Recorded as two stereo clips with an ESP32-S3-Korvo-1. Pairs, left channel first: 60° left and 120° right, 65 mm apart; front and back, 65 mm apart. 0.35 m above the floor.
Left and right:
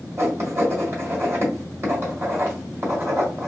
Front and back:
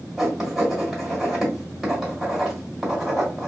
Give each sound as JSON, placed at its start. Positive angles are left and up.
{"t": 0.2, "sound": "writing", "azimuth_deg": -90, "distance_m": 1.9}